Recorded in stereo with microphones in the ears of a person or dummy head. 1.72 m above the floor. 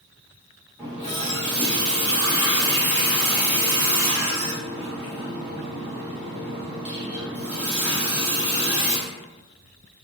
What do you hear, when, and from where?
0.8 s a running tap: 5° right (ahead or behind), 0.7 m